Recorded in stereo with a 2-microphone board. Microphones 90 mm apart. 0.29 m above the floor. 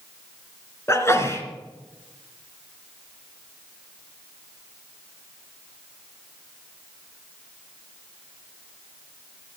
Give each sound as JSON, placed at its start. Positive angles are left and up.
{"t": 0.9, "sound": "a sneeze", "side_deg": 30, "distance_m": 3.0}